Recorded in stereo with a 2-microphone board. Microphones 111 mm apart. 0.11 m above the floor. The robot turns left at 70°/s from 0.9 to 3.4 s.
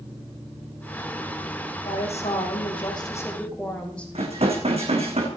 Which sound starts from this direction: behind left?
A woman speaking, at 1.8 s.